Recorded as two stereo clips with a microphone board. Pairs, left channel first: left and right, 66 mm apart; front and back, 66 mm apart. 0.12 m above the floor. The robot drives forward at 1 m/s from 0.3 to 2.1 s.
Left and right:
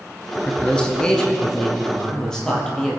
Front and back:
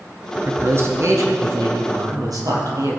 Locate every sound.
0.3 s a man speaking: 150° left, 1.3 m; by 3.0 s 170° left, 2.5 m